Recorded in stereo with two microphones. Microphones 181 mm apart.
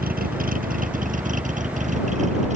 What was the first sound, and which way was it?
A vehicle, 50° right (ahead or behind).